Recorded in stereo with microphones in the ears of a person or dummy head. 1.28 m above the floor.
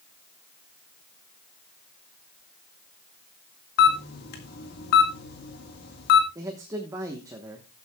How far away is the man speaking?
About 1.2 m.